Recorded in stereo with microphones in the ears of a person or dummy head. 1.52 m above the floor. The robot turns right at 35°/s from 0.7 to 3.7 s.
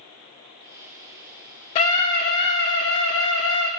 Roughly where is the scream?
Ahead left.